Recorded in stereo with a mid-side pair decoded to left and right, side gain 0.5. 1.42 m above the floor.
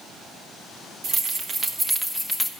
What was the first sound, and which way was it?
Keys jangling, 50° right.